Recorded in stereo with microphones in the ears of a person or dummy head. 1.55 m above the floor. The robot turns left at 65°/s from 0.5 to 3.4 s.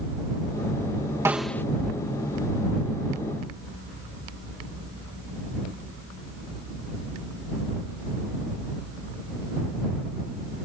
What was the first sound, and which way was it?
A snare drum, 15° right (ahead or behind).